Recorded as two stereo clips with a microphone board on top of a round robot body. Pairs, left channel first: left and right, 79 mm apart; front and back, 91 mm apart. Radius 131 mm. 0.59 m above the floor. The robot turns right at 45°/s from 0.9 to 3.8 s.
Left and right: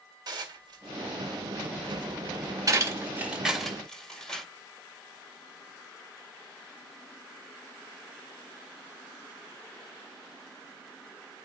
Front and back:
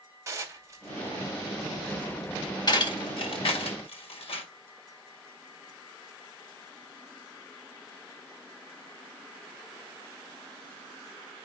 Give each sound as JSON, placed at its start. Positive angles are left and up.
{"t": 0.3, "sound": "dishes clattering", "azimuth_deg": -120, "distance_m": 2.0}